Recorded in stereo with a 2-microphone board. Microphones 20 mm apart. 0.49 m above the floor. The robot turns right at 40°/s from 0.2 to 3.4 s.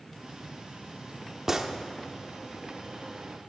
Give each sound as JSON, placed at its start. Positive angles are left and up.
{"t": 1.5, "sound": "a gunshot", "side_deg": -20, "distance_m": 1.0}